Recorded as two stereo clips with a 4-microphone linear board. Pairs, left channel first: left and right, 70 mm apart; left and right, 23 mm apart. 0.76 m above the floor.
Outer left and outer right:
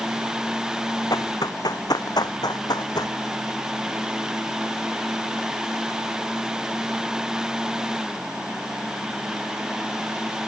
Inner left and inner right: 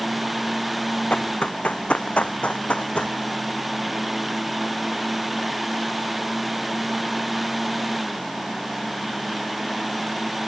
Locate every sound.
1.1 s running footsteps: 60° left (ahead or behind); by 3.2 s 65° left (ahead or behind)